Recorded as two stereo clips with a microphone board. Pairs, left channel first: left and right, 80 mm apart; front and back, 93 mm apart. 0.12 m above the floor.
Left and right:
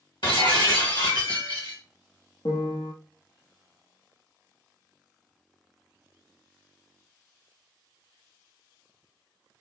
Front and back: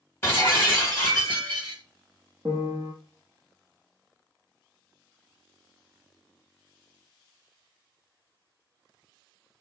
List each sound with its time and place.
0.2 s breaking glass: 70° left, 1.2 m
2.5 s a piano: 115° left, 0.7 m